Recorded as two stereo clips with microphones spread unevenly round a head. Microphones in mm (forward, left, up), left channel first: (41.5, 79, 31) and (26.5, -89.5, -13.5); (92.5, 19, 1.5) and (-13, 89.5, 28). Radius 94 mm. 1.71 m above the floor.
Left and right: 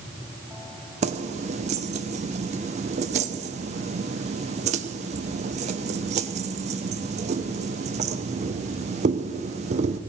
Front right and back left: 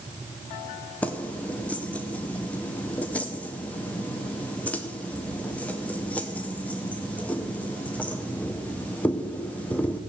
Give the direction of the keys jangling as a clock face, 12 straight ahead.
4 o'clock.